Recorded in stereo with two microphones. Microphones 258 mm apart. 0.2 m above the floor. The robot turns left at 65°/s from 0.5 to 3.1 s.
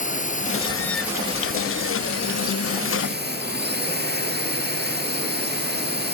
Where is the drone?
30° left; by 6.1 s 140° right.